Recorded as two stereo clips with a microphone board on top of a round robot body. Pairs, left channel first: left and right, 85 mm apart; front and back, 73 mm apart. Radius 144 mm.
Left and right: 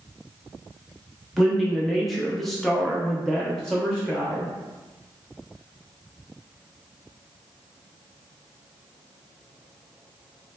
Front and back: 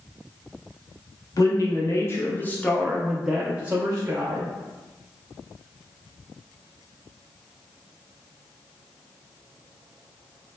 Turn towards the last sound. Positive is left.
turn(degrees=175)